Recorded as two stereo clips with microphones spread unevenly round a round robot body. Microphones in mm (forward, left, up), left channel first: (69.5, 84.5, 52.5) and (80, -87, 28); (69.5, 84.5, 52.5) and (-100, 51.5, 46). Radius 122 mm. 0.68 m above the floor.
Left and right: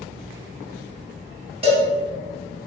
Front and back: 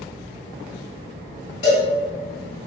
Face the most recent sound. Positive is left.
turn(degrees=-30)